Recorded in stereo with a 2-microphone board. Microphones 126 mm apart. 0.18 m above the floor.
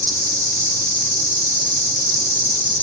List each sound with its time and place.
0.0 s an insect: 15° left (ahead or behind), 1.1 m